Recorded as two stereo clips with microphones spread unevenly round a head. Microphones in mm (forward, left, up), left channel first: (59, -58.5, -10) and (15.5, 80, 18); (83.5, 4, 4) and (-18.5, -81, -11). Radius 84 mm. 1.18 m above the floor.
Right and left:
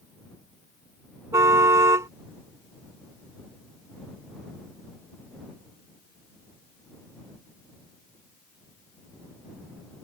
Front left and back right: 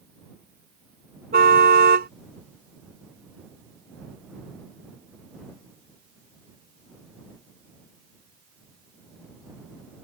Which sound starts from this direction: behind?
A car horn, at 1.3 s.